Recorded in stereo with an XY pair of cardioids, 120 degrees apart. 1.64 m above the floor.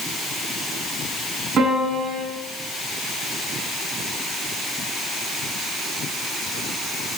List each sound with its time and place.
1.6 s a piano: 45° right, 7.5 m